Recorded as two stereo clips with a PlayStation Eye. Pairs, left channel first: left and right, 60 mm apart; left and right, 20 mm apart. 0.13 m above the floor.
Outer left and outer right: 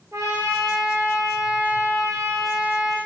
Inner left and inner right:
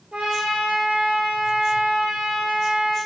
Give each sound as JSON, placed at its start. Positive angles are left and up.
{"t": 0.1, "sound": "a trumpet", "side_deg": -65, "distance_m": 1.7}